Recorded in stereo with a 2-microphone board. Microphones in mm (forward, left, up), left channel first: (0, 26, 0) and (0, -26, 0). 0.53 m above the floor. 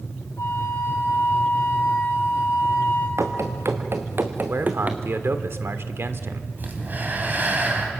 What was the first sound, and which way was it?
A flute, 65° left (ahead or behind).